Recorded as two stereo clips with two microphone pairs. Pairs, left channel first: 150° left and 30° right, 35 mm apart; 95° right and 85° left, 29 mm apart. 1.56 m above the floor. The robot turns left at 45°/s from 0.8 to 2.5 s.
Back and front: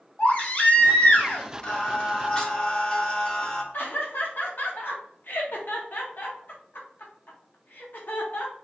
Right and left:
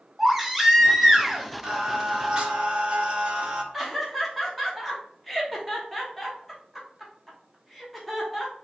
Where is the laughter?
175° left, 0.9 m.